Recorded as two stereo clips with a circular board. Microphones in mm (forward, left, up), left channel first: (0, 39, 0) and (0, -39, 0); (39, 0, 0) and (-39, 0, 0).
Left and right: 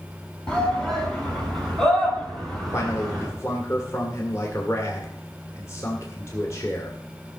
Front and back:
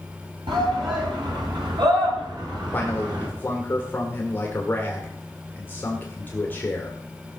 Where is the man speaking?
55° left, 1.8 m.